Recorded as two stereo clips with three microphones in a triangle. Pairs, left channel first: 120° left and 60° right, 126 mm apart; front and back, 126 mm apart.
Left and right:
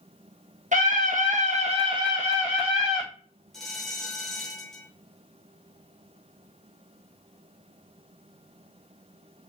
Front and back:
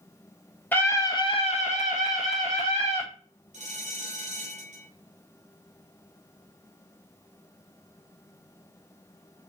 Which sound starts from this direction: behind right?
A bell, at 3.5 s.